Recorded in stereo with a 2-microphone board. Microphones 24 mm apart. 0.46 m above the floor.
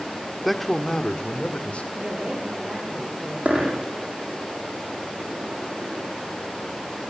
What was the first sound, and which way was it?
A man speaking, centre (ahead or behind).